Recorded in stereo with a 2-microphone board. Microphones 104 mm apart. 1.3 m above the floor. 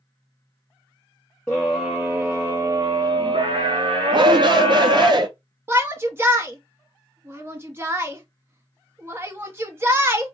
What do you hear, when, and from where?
1.5 s a scream: 5° left (ahead or behind), 1.0 m; by 5.1 s 75° right (ahead or behind), 1.8 m
4.1 s a shout: 45° right (ahead or behind), 0.6 m
5.7 s a shout: 20° right (ahead or behind), 0.8 m